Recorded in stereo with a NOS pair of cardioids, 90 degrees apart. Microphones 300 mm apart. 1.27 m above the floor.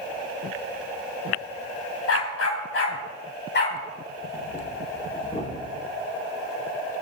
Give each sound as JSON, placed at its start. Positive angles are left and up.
{"t": 2.1, "sound": "a dog barking", "azimuth_deg": 55, "distance_m": 3.0}
{"t": 4.2, "sound": "breathing", "azimuth_deg": 25, "distance_m": 5.0}